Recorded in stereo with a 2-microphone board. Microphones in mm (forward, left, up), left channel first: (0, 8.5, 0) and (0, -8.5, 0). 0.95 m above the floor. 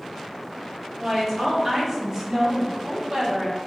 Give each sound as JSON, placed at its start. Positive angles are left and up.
{"t": 1.0, "sound": "a woman speaking", "side_deg": -10, "distance_m": 1.4}